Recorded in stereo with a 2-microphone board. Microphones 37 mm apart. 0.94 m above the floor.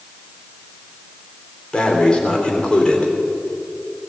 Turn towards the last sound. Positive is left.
turn(degrees=25)  # may be behind; listen again after turning